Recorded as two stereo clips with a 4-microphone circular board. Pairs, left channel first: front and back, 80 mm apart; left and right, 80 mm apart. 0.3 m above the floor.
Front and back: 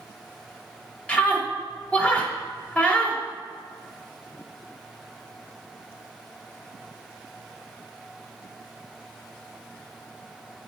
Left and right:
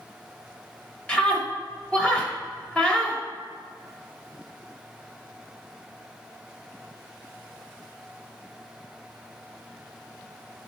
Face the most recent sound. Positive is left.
turn(degrees=35)